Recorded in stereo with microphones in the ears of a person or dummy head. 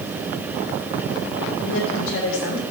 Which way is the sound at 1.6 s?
80° left.